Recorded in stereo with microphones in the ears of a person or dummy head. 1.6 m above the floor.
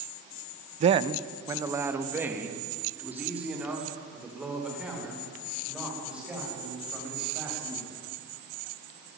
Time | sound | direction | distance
0.8 | a man speaking | 40° right (ahead or behind) | 0.6 m